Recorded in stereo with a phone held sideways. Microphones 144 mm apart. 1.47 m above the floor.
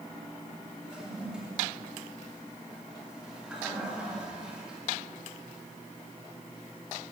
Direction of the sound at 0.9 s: 5° right (ahead or behind).